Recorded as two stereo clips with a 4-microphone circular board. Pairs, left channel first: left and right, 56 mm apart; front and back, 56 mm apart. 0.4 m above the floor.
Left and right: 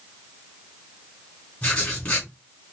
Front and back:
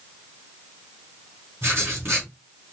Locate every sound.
1.6 s writing: 150° left, 2.5 m